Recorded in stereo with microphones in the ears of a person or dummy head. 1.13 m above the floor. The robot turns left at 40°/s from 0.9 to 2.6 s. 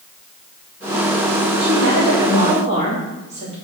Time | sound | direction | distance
1.6 | a woman speaking | 105° right | 3 m